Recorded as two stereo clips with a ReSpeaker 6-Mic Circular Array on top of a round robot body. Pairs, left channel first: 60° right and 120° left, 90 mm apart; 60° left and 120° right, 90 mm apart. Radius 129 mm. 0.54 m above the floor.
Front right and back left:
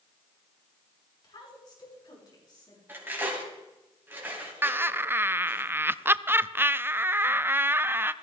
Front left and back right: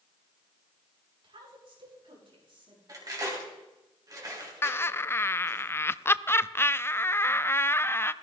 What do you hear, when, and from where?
1.2 s a woman speaking: 95° right, 7.5 m; by 2.8 s 100° right, 6.5 m
2.9 s cutlery clinking: 170° right, 3 m
4.6 s laughter: 85° left, 0.6 m